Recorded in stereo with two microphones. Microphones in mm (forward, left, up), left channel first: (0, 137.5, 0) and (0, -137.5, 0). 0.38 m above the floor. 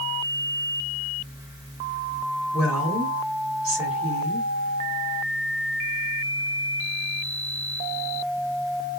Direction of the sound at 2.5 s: 55° right (ahead or behind).